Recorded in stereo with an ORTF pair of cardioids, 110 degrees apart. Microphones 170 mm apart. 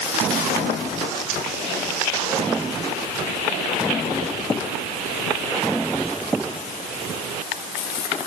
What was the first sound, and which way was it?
Only background noise.